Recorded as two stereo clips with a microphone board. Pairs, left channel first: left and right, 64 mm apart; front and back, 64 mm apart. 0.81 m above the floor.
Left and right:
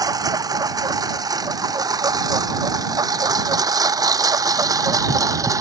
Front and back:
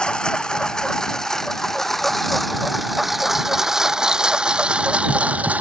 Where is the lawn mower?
80° right; by 5.6 s 115° right.